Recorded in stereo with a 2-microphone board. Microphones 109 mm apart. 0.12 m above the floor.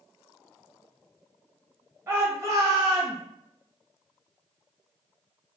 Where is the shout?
25° right (ahead or behind), 1.4 m.